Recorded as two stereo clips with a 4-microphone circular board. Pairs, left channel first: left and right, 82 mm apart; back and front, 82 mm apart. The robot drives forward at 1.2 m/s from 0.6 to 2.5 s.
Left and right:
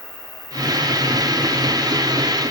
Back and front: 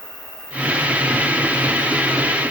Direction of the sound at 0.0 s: 130° left.